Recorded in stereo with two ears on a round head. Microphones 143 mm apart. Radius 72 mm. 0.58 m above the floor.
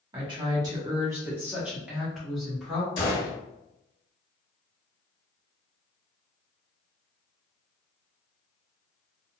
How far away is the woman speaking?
About 1.1 m.